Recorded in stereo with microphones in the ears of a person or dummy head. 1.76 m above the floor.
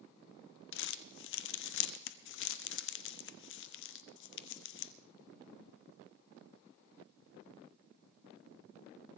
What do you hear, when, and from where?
0.7 s crumpling: 65° left (ahead or behind), 0.7 m